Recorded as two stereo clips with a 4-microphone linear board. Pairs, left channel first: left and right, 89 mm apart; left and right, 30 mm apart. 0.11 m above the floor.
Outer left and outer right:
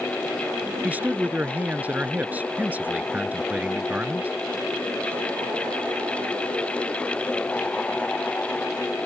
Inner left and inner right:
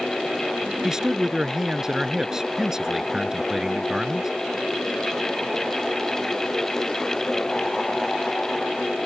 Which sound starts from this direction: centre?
A man speaking, at 0.8 s.